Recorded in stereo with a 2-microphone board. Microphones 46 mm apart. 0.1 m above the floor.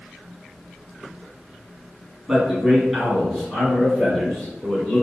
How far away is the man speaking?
About 1.5 m.